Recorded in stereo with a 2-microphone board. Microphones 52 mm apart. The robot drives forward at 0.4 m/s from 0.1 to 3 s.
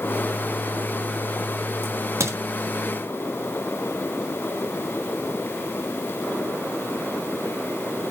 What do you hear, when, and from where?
1.8 s a crack: 60° right (ahead or behind), 3 m; by 2.4 s 65° right (ahead or behind), 2.5 m